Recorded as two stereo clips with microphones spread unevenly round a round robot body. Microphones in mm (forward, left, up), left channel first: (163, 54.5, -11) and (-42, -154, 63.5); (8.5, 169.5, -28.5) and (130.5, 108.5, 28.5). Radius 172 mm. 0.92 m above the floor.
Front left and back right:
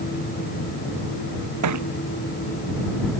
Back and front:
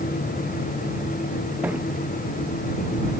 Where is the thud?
110° right.